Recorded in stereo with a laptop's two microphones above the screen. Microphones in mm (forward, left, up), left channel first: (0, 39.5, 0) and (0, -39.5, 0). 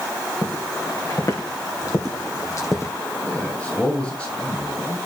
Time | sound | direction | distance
0.4 | footsteps | 50° left (ahead or behind) | 3 m
3.2 | a man speaking | 15° left (ahead or behind) | 6.5 m